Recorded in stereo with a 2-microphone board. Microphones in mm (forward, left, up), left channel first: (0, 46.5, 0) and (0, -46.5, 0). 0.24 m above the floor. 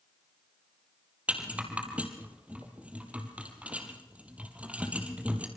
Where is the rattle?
15° right (ahead or behind), 3.5 m.